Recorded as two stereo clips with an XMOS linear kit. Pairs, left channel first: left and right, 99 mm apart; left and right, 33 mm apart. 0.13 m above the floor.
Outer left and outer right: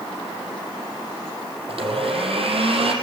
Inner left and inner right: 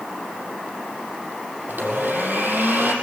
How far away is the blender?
About 5 m.